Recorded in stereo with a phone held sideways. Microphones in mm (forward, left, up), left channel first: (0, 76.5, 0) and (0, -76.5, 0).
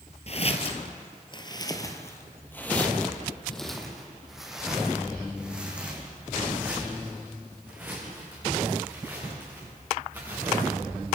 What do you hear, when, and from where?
0.3 s footsteps: 45° left (ahead or behind), 2.0 m; by 10.7 s 15° right (ahead or behind), 10 m